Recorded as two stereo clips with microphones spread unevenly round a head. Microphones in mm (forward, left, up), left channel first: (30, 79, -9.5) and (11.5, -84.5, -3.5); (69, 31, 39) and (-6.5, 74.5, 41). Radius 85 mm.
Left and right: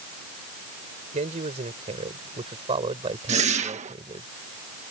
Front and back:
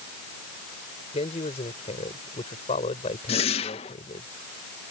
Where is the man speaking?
50° right; by 4.3 s 35° right.